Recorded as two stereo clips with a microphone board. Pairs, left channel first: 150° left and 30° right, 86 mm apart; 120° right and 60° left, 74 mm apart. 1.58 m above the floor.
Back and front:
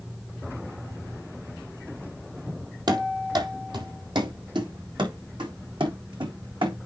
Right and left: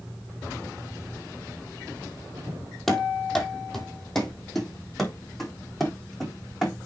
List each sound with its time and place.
2.9 s running footsteps: 35° right, 2.5 m; by 6.8 s 30° right, 5.5 m